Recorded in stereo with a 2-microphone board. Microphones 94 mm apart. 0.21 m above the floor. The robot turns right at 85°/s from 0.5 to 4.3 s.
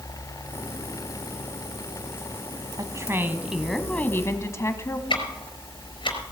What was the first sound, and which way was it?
A woman speaking, 75° right.